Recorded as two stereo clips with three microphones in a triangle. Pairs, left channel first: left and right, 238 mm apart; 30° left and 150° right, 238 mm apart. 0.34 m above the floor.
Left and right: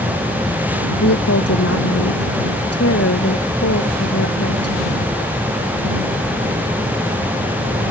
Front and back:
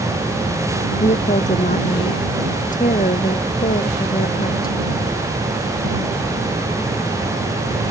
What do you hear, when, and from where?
1.0 s a woman speaking: 90° left; by 4.8 s 85° left